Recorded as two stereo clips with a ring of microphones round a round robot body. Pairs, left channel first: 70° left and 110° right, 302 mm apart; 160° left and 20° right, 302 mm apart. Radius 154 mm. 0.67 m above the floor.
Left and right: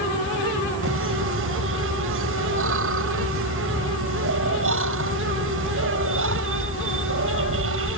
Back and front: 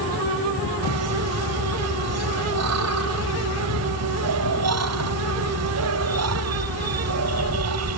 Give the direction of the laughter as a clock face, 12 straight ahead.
2 o'clock.